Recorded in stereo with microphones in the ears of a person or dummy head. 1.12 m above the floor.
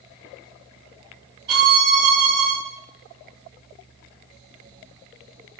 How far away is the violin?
About 3.5 m.